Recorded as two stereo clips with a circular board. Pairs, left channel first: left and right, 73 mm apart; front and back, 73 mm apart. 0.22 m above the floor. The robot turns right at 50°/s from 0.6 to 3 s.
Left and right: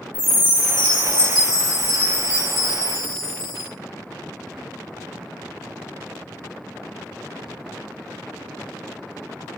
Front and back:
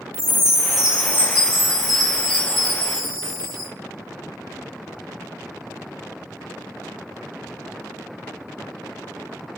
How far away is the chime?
About 3 m.